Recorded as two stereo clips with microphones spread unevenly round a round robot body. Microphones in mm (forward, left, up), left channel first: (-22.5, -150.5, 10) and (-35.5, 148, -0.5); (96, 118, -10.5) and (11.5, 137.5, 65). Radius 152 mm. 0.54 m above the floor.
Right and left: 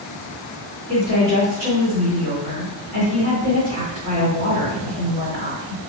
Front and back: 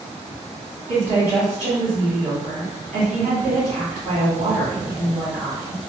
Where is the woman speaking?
150° left, 1.7 m.